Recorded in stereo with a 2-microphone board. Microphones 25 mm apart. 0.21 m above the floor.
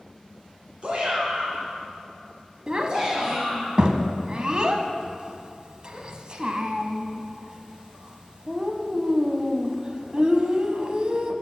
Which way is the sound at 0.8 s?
45° right (ahead or behind).